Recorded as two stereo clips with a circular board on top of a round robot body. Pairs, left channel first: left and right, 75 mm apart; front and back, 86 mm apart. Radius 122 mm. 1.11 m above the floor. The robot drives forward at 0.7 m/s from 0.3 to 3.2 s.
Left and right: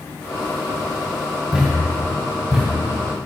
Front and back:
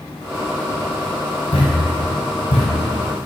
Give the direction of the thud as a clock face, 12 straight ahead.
12 o'clock.